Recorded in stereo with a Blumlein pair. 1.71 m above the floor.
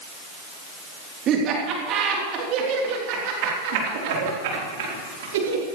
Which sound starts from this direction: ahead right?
Laughter, at 1.3 s.